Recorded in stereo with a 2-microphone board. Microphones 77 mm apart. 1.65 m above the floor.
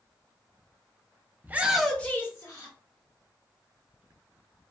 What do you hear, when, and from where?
1.4 s a shout: 25° right (ahead or behind), 0.6 m; by 2.8 s 50° left (ahead or behind), 0.9 m